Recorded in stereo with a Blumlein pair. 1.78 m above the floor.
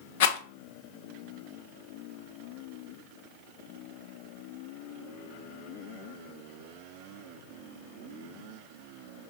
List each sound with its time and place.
0.2 s a rattle: 55° left, 0.6 m